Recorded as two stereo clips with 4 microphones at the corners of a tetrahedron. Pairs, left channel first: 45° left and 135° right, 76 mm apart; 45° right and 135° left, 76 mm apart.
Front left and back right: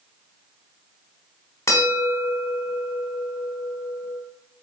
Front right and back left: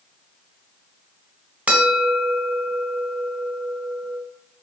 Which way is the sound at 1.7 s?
75° left.